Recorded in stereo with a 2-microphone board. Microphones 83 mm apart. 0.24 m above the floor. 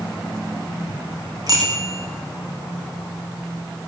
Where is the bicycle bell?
40° right (ahead or behind), 9.5 m.